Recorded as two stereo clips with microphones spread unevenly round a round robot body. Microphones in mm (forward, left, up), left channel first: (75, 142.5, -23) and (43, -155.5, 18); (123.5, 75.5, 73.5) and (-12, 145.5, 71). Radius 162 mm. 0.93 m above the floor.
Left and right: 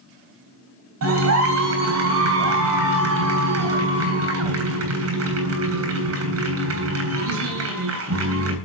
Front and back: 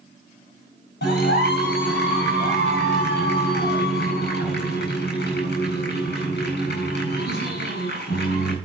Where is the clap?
60° right, 8 m.